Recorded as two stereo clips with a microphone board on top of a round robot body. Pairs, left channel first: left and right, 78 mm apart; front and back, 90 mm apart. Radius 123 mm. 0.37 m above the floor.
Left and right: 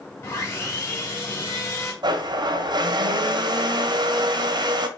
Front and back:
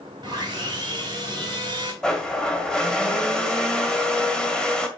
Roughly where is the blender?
Right.